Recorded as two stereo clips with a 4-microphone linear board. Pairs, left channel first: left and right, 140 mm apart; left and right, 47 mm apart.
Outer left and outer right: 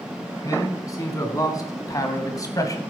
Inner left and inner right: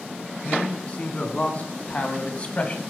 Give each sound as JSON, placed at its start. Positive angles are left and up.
{"t": 0.4, "sound": "a man speaking", "side_deg": 25, "distance_m": 3.0}